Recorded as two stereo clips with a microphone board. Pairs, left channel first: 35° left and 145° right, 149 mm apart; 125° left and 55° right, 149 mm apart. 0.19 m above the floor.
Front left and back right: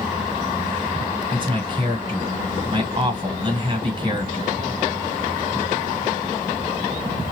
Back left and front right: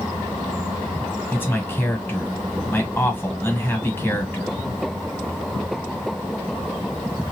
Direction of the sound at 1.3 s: 170° right.